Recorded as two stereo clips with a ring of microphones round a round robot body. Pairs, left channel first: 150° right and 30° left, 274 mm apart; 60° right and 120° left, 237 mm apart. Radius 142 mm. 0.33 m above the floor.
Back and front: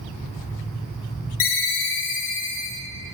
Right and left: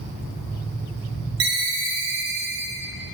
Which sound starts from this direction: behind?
A ringtone, at 1.4 s.